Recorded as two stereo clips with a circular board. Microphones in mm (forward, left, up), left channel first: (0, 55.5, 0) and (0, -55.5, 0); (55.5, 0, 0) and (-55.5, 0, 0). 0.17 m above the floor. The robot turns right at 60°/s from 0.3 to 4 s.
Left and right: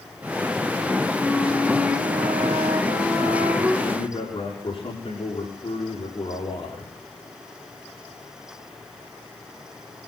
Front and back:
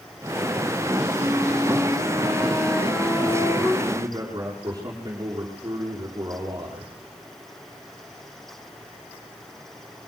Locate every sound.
1.2 s a flute: straight behind, 10 m; by 3.7 s 25° right, 10 m
3.8 s a man speaking: 115° left, 8 m; by 6.9 s 130° left, 8 m